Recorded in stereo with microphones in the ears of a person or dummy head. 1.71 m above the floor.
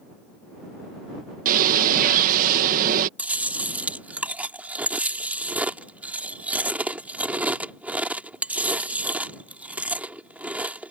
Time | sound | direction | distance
1.4 | a bird | 45° right (ahead or behind) | ?
3.2 | chewing | 5° right (ahead or behind) | ?